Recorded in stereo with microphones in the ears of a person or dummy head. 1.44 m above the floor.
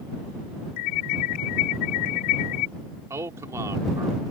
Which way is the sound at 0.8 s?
55° left (ahead or behind).